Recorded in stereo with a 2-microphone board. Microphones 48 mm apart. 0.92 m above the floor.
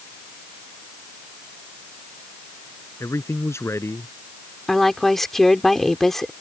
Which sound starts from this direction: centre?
A woman speaking, at 4.7 s.